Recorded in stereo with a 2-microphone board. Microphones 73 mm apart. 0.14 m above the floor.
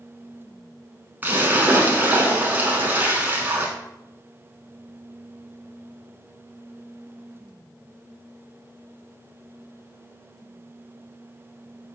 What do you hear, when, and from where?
1.2 s a splash: 25° right (ahead or behind), 0.8 m